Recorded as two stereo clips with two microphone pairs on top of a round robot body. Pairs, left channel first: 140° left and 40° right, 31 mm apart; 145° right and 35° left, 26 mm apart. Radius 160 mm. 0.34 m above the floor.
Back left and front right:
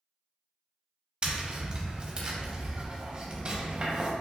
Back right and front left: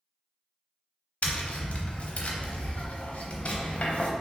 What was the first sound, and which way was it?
Tapping, 105° right.